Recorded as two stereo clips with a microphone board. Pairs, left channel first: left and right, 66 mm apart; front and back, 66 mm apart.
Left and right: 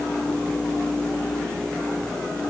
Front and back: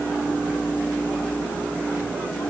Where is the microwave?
No microwave in this recording.